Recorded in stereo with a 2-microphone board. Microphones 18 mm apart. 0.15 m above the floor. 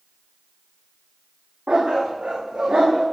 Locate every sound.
1.7 s a dog barking: 75° right (ahead or behind), 4.5 m